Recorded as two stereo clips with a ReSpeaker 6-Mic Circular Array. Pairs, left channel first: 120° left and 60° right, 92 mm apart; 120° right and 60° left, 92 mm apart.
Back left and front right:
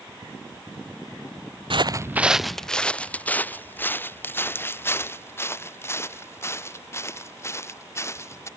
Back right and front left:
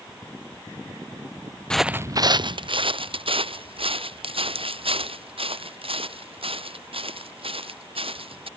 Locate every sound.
1.7 s footsteps: 40° right; by 8.5 s 60° left